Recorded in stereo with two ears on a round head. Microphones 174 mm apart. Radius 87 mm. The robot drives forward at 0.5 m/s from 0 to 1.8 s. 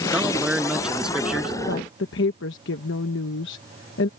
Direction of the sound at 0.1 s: 5° right (ahead or behind).